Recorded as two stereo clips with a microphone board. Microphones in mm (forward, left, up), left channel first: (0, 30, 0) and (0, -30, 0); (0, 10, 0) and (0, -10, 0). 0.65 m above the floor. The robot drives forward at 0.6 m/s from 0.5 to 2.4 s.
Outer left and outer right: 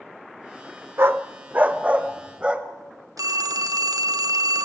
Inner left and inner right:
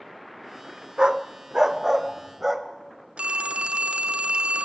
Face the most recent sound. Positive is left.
turn(degrees=-75)  # may be behind; listen again after turning